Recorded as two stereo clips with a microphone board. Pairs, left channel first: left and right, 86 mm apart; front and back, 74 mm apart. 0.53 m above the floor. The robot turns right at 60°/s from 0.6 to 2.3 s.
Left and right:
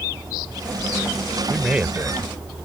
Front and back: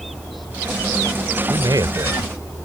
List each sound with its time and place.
1.5 s a man speaking: straight behind; by 2.3 s 130° right